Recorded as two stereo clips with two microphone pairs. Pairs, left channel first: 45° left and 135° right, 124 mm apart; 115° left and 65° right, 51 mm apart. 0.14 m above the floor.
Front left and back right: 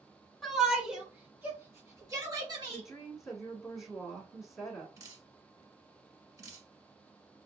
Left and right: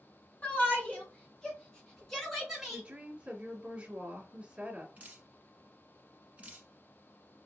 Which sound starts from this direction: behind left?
A shout, at 0.4 s.